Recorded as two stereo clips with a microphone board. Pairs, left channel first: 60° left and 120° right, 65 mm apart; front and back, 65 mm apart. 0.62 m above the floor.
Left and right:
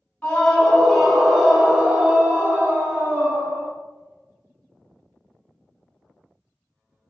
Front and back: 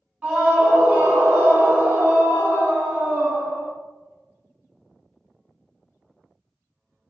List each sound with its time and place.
0.2 s a scream: 125° left, 1.4 m; by 3.7 s 125° right, 1.5 m